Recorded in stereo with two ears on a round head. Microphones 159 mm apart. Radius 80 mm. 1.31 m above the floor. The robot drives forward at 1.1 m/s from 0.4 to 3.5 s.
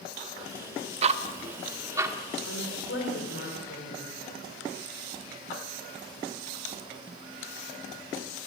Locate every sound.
1.0 s ticking: 35° right (ahead or behind), 0.9 m; by 2.2 s 15° right (ahead or behind), 1.9 m
2.5 s a woman speaking: 80° left, 4 m; by 4.2 s 65° left (ahead or behind), 4.5 m